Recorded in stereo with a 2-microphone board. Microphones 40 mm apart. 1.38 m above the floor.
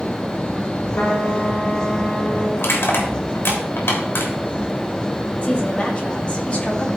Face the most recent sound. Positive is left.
turn(degrees=30)  # may be behind; listen again after turning